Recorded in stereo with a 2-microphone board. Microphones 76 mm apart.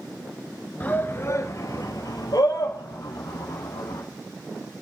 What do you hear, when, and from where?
0.8 s a shout: 20° left (ahead or behind), 1.2 m; by 4.0 s 70° left (ahead or behind), 4 m